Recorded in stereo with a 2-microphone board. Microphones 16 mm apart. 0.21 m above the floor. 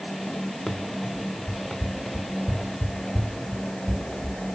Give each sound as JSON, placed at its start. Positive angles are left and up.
{"t": 0.7, "sound": "running footsteps", "side_deg": 35, "distance_m": 2.5}